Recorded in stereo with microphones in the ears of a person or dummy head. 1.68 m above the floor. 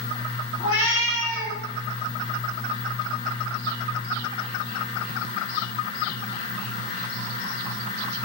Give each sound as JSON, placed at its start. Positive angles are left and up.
{"t": 0.6, "sound": "a cat meowing", "side_deg": 65, "distance_m": 2.5}